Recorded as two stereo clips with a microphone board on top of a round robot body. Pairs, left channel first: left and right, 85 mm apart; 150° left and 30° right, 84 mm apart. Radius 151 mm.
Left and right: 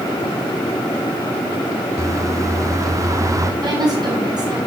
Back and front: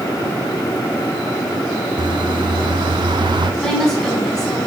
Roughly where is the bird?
Ahead right.